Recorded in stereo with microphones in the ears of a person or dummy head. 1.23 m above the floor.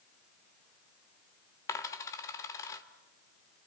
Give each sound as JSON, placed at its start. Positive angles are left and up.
{"t": 1.7, "sound": "a dropped coin", "side_deg": 15, "distance_m": 1.4}